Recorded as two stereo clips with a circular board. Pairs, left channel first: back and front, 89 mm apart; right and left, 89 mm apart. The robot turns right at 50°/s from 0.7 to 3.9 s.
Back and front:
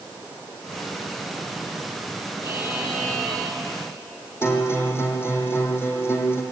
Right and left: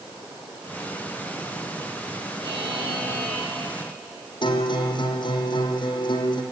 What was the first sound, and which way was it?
A buzzer, 50° left.